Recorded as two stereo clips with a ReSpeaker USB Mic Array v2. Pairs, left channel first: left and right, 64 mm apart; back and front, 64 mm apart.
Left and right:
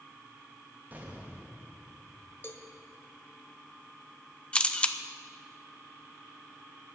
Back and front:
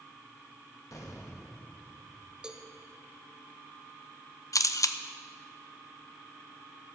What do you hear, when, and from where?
0.9 s an explosion: 150° right, 2 m
2.4 s a cowbell: 70° left, 1.3 m
4.5 s a camera shutter: 160° left, 0.7 m